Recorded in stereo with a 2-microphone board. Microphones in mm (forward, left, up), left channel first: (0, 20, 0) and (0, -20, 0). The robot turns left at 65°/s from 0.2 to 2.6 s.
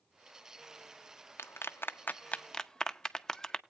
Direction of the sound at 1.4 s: 85° left.